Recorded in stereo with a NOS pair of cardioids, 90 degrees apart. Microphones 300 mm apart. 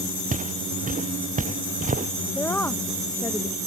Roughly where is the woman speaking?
Ahead.